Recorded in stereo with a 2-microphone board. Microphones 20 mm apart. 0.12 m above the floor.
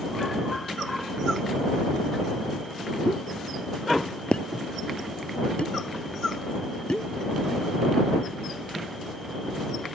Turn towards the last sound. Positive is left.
turn(degrees=60)  # may be behind; listen again after turning